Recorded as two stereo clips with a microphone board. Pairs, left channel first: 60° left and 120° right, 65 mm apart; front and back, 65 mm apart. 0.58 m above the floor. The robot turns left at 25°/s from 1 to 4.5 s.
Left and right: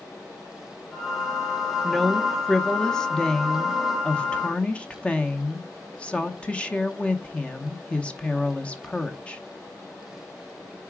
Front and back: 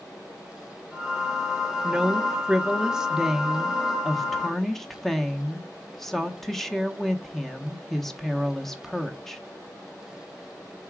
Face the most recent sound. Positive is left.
turn(degrees=75)